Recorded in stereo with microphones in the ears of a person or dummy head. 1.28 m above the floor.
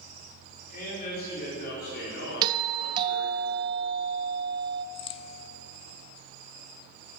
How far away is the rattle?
No rattle in this recording.